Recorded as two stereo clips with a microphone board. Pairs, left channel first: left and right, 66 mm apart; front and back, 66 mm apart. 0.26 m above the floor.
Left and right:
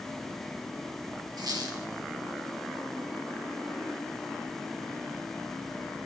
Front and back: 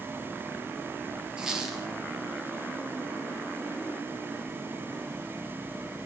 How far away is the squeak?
About 4 m.